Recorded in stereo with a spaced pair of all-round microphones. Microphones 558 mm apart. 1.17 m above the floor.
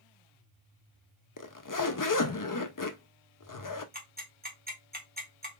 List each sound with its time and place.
1.4 s a zipper: 40° left (ahead or behind), 0.5 m
3.9 s ticking: 15° right (ahead or behind), 1.3 m